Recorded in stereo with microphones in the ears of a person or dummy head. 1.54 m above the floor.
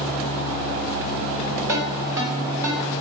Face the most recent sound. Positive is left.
turn(degrees=-15)  # may be behind; listen again after turning